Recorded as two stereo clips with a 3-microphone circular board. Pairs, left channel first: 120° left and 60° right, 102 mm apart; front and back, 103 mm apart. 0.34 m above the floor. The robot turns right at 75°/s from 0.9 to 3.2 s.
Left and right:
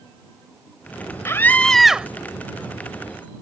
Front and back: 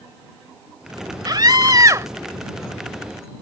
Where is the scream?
165° left; by 2.1 s 130° right.